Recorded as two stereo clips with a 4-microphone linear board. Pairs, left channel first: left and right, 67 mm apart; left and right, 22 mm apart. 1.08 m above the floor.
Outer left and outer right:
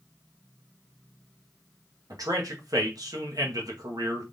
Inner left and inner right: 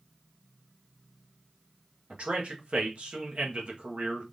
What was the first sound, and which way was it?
A man speaking, 65° right (ahead or behind).